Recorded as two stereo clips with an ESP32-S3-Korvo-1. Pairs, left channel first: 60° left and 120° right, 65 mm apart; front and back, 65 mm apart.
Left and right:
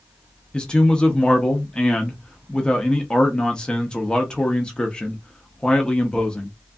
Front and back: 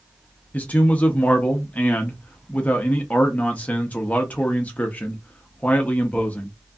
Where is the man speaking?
5° left, 0.5 m.